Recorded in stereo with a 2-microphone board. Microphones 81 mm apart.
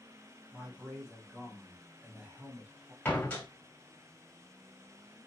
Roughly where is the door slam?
Centre.